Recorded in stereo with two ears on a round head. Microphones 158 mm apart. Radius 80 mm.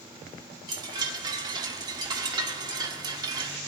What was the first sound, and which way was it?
A chime, 25° right (ahead or behind).